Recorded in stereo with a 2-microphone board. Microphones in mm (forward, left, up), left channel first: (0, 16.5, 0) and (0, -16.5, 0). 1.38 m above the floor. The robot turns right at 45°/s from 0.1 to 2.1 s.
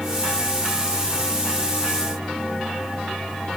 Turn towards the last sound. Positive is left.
No sound to turn to.